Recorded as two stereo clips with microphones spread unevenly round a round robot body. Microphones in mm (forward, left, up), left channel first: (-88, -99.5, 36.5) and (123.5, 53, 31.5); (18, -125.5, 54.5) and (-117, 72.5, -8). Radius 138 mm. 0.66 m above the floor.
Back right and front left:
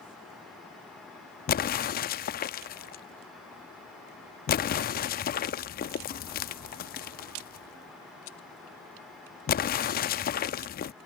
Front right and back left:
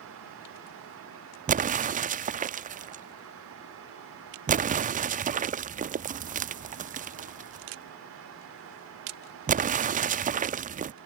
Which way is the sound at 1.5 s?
165° left.